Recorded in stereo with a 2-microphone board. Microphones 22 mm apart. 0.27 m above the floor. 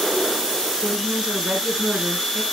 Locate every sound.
0.8 s a woman speaking: 50° right (ahead or behind), 3.5 m